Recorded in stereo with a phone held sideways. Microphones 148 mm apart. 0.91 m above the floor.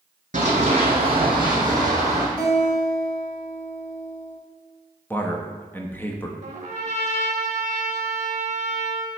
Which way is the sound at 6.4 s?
45° right (ahead or behind).